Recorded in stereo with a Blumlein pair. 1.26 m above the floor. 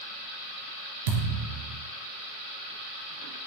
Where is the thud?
50° right, 3.5 m.